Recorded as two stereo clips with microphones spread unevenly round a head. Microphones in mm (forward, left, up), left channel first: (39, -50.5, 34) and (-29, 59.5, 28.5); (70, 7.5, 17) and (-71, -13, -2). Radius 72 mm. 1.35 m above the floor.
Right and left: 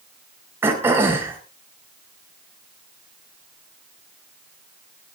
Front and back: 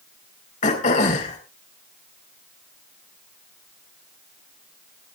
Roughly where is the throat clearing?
Ahead left.